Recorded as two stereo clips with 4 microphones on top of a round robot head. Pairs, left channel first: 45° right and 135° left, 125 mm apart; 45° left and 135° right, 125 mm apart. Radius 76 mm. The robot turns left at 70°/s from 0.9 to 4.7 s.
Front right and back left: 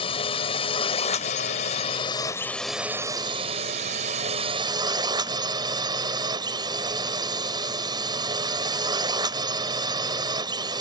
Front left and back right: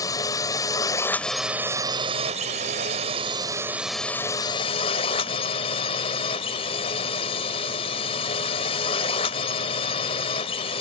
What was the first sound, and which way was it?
A drone, 10° right.